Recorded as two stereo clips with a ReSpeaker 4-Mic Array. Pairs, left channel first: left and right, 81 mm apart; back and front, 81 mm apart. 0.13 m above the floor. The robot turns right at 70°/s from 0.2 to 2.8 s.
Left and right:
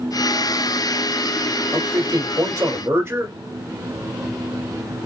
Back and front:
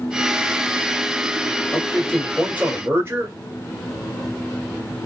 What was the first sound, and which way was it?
A man speaking, 125° right.